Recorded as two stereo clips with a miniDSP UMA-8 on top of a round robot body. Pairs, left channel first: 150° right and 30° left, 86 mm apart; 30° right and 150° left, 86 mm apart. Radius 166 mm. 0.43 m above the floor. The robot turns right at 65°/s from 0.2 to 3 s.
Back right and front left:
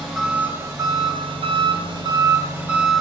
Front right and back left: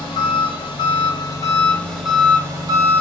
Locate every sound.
0.0 s an engine running: 55° right, 1.2 m; by 3.0 s 125° left, 1.2 m